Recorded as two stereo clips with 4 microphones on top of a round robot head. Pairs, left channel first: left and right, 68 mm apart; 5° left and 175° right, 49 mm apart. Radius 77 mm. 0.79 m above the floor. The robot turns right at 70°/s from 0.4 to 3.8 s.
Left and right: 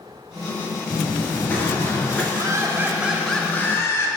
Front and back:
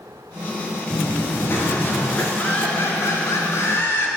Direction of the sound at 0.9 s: Straight ahead.